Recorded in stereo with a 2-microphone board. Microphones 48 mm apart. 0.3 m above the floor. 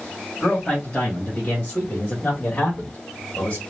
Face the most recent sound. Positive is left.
turn(degrees=30)  # may be behind; listen again after turning